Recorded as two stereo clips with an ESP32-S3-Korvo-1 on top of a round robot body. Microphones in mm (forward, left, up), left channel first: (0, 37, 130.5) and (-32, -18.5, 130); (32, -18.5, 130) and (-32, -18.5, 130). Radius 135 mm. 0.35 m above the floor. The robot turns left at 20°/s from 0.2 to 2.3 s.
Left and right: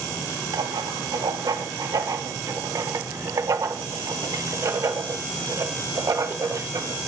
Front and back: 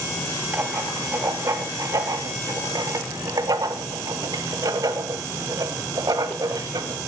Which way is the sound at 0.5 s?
120° right.